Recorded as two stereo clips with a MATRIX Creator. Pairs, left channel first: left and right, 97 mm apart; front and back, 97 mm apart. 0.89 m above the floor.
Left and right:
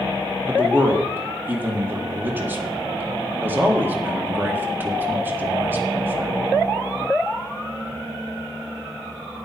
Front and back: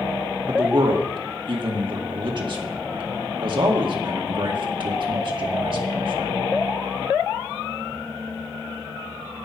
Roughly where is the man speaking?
Behind right.